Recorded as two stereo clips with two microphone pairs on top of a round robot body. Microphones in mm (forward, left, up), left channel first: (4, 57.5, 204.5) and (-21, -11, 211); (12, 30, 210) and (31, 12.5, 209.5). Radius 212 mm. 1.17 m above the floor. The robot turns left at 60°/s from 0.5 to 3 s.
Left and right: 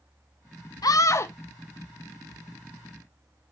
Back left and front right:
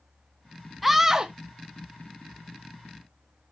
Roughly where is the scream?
Ahead left.